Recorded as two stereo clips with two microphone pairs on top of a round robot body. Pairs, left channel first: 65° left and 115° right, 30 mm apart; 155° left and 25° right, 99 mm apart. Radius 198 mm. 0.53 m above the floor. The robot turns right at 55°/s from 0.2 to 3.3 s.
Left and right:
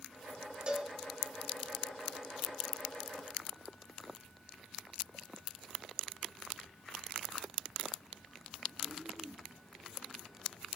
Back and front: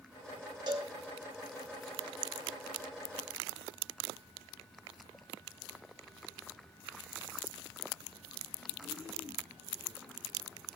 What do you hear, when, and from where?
0.7 s a cowbell: 60° right, 3 m; by 0.9 s 45° right, 3 m